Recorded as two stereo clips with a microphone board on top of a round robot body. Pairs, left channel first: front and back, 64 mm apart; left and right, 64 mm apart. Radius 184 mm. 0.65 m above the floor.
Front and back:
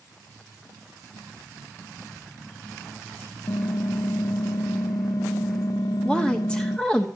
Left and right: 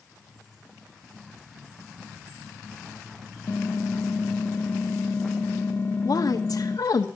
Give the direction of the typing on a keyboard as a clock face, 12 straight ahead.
11 o'clock.